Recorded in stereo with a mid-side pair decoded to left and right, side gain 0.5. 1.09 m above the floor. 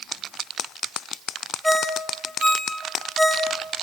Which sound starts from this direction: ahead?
A ringtone, at 1.6 s.